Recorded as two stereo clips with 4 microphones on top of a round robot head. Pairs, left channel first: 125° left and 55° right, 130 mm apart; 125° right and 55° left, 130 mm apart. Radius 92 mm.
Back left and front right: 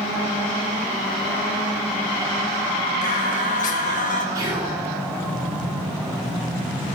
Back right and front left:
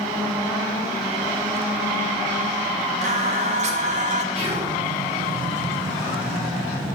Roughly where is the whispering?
Ahead.